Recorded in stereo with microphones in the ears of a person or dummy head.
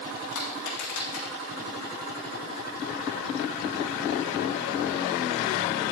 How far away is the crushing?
About 6 m.